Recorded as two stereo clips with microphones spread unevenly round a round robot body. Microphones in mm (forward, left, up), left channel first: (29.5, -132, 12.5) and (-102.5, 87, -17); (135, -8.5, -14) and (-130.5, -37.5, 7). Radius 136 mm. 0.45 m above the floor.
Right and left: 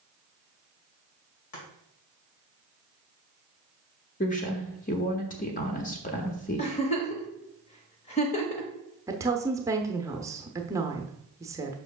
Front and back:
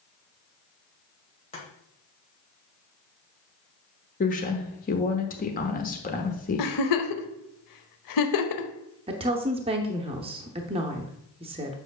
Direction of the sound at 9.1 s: 145° left.